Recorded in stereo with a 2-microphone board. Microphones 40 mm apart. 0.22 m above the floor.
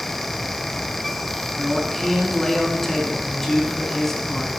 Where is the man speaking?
10° left (ahead or behind), 2.5 m.